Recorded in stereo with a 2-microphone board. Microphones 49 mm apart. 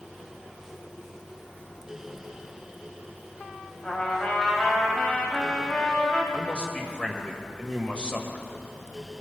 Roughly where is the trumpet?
Left.